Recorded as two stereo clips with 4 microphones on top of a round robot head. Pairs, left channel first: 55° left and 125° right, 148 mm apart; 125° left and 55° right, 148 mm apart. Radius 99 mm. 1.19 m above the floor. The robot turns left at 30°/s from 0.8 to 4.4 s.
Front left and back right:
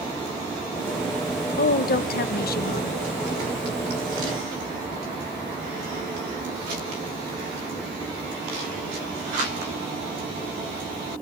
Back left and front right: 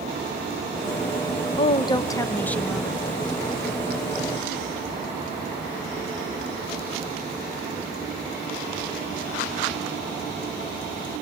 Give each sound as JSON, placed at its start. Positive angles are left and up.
{"t": 1.6, "sound": "a woman speaking", "azimuth_deg": 75, "distance_m": 1.5}